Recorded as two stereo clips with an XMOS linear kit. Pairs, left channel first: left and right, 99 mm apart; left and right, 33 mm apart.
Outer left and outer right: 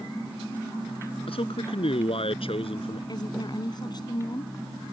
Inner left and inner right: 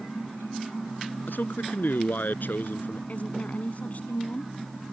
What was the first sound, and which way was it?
A man speaking, 70° left (ahead or behind).